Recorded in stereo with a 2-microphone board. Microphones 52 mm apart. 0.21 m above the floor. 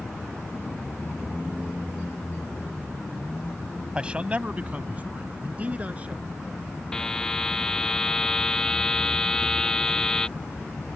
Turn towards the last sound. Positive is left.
turn(degrees=10)  # may be behind; listen again after turning